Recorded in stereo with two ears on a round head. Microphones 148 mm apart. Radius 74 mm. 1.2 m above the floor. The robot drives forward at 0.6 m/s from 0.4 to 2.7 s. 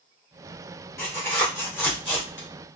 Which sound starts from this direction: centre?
Tearing paper, at 1.0 s.